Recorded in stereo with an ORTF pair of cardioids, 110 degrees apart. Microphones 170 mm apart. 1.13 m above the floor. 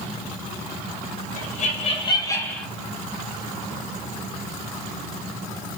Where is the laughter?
55° left, 1.1 m; by 2.7 s 5° left, 0.9 m.